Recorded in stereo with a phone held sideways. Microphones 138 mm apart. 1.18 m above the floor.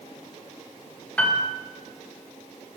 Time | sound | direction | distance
1.2 | a piano | 10° left (ahead or behind) | 1.3 m